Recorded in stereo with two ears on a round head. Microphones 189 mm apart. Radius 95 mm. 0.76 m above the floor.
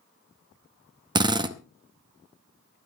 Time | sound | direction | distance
1.1 | a drill | 20° right (ahead or behind) | 0.7 m